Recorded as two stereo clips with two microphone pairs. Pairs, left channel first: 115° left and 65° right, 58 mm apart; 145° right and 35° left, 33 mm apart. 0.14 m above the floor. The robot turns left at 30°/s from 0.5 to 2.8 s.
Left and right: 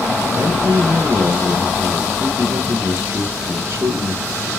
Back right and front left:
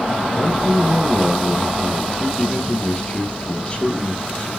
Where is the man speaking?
30° right, 2.5 m; by 4.5 s 100° right, 2.5 m.